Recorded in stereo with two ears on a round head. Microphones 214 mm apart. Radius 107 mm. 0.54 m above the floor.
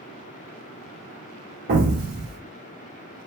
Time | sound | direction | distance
1.7 | an explosion | 45° right (ahead or behind) | 0.9 m